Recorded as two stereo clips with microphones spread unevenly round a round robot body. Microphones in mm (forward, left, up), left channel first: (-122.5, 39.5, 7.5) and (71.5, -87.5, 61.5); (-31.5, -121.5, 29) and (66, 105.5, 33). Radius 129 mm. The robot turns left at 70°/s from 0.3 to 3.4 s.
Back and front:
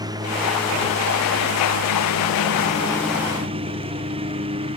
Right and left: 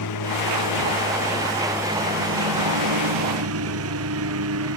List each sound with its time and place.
0.0 s a lawn mower: 105° right; by 4.8 s 35° left